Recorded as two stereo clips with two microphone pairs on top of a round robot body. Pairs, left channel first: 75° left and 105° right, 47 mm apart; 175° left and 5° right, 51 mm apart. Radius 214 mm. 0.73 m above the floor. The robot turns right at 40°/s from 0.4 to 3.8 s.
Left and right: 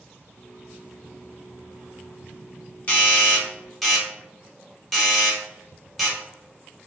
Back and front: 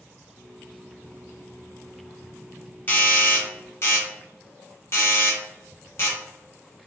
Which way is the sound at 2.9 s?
125° left.